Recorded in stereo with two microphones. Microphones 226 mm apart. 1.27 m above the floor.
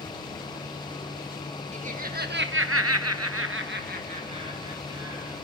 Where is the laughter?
30° right (ahead or behind), 2.0 m; by 5.3 s 15° right (ahead or behind), 3 m.